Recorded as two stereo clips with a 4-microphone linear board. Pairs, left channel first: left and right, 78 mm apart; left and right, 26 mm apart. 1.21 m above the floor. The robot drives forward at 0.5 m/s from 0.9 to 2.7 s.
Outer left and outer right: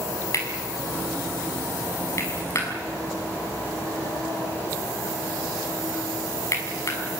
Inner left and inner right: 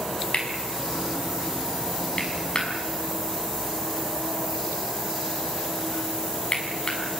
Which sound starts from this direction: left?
Cutlery clinking, at 0.3 s.